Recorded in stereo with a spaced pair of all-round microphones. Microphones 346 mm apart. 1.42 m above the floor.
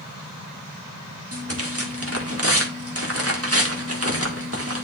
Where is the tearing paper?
40° right (ahead or behind), 1.6 m.